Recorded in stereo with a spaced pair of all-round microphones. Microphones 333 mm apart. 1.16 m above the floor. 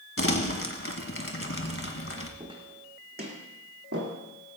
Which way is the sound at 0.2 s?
40° left (ahead or behind).